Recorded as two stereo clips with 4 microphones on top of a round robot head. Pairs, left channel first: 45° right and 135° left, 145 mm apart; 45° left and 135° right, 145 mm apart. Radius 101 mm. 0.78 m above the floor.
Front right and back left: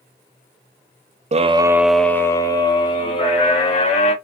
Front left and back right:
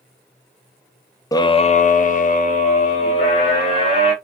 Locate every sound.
1.3 s a scream: 110° left, 0.5 m; by 4.1 s straight ahead, 2 m